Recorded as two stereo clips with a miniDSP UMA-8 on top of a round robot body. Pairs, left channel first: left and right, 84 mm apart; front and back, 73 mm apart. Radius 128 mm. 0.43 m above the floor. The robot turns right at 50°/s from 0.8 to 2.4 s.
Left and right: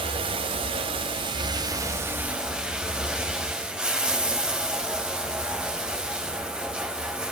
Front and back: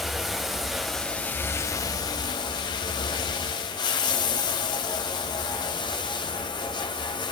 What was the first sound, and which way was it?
Running water, 90° right.